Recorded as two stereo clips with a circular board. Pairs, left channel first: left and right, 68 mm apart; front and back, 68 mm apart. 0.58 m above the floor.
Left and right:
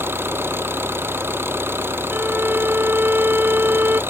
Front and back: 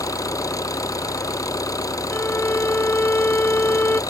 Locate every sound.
0.0 s an engine running: 35° right
2.1 s a violin: 45° right